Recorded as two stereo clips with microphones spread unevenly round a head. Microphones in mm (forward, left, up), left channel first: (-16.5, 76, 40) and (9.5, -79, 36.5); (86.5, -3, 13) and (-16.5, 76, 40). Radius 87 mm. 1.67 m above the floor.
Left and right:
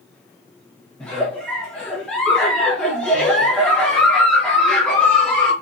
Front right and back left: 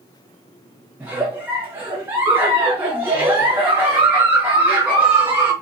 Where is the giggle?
175° left, 1.0 m.